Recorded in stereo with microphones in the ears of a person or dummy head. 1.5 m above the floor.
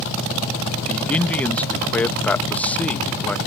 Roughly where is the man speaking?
Centre.